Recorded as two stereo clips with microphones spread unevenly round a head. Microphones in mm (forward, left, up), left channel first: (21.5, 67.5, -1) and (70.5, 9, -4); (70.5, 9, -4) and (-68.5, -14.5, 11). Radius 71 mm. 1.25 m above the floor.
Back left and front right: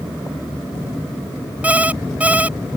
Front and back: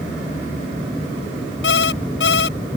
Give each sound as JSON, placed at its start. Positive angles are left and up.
{"t": 1.6, "sound": "an alarm clock", "azimuth_deg": 20}